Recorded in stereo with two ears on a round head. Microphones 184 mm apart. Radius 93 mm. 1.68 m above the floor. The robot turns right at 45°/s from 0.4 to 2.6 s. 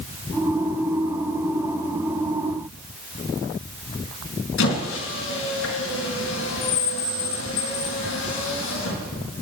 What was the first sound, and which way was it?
A squeak, 70° left (ahead or behind).